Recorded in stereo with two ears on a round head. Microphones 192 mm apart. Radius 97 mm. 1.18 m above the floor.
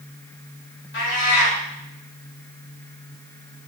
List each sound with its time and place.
0.9 s a cat meowing: 50° left (ahead or behind), 3 m